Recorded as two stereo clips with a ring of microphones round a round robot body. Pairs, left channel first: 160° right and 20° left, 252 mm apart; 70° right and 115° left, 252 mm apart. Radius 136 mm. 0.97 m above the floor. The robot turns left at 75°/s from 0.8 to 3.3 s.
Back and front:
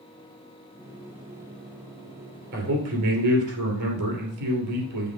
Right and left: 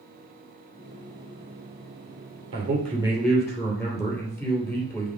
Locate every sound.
2.5 s a man speaking: 70° left, 2.5 m; by 5.2 s 10° left, 2.5 m